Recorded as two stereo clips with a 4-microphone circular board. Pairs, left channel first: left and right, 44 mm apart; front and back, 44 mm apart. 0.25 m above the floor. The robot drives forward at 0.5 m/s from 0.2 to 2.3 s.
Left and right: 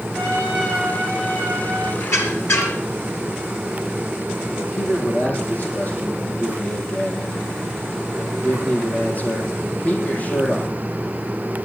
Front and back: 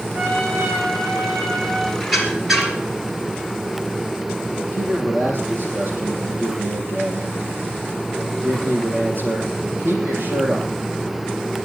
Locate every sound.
0.1 s a trumpet: straight behind, 8 m
2.0 s a squeak: 90° left, 3.5 m
4.7 s a man speaking: 145° left, 7.5 m